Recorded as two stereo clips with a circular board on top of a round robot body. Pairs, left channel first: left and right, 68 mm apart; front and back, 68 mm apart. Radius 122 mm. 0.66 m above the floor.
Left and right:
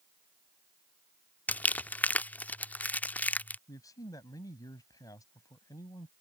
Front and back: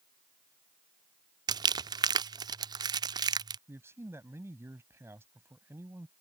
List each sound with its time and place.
1.5 s crumpling: 160° left
3.7 s a man speaking: 125° left